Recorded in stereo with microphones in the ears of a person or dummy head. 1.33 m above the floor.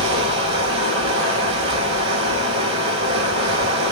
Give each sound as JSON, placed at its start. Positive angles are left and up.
{"t": 0.0, "sound": "running water", "side_deg": -30, "distance_m": 4.5}